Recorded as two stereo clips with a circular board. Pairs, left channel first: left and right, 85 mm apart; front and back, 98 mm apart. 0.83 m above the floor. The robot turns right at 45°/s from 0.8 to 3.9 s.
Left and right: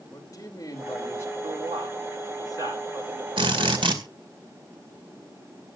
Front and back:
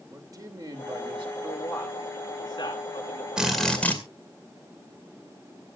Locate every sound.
0.1 s a man speaking: 130° left, 2.5 m; by 1.3 s 155° left, 2.5 m
1.4 s a man speaking: 90° right, 9.5 m; by 3.3 s 10° right, 9.5 m
3.4 s a drill: 100° right, 2 m; by 4.0 s 75° right, 2 m